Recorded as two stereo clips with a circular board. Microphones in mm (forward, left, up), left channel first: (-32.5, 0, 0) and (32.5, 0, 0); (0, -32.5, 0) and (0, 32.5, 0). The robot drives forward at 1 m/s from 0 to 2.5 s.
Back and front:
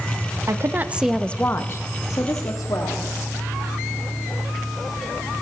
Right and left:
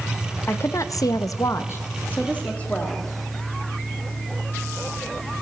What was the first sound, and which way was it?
A woman speaking, 40° right.